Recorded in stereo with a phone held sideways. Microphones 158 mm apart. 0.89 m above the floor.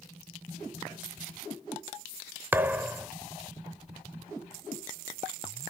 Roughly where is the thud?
Centre.